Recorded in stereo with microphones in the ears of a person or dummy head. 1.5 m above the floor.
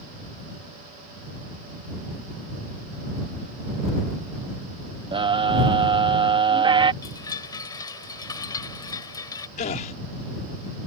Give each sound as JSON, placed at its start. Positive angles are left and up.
{"t": 5.1, "sound": "a scream", "side_deg": -25}
{"t": 7.0, "sound": "a chime", "side_deg": 20}
{"t": 9.6, "sound": "a gasp", "side_deg": 40}